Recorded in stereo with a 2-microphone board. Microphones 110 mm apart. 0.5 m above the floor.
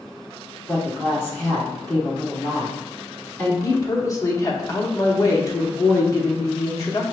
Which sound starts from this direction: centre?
A woman speaking, at 0.7 s.